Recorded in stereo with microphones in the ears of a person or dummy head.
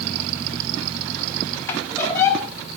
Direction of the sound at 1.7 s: 15° left (ahead or behind).